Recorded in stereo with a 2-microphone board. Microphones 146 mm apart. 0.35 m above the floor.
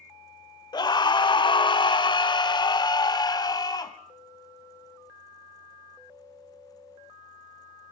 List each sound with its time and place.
0.7 s a scream: 30° left (ahead or behind), 0.9 m